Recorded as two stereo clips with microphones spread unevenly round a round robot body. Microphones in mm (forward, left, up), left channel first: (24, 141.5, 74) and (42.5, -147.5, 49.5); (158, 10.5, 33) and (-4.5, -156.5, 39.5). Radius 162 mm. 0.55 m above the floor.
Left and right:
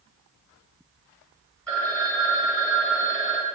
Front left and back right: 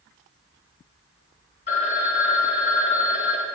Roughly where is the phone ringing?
Ahead.